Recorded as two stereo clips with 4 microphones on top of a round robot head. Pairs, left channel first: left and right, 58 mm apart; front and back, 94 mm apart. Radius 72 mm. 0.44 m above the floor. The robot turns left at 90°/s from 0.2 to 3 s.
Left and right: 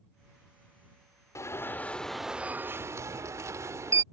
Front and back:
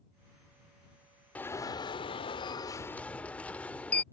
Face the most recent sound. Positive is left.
turn(degrees=-75)